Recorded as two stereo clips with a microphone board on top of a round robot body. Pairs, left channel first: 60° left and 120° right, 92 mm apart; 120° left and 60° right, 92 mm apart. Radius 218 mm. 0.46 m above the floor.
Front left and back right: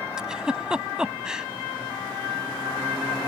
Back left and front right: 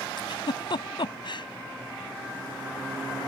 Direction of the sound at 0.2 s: 160° left.